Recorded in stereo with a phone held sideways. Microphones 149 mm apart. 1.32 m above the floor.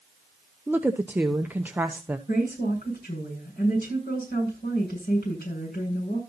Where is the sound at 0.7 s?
10° right (ahead or behind), 0.7 m.